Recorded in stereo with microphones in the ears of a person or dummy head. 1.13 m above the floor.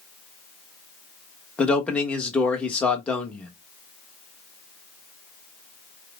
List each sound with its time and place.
1.6 s a man speaking: 5° left (ahead or behind), 1.0 m